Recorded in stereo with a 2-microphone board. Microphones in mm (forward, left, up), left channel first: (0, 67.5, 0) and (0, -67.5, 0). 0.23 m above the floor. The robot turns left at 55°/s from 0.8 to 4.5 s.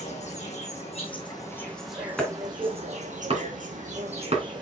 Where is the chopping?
5° left (ahead or behind), 2.5 m; by 4.4 s 50° right (ahead or behind), 2.5 m.